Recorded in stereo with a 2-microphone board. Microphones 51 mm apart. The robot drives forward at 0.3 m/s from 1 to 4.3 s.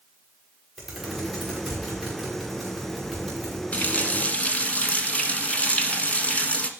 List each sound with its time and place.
0.8 s typing on a keyboard: 5° right (ahead or behind), 5 m
3.7 s a running tap: 30° left (ahead or behind), 1.5 m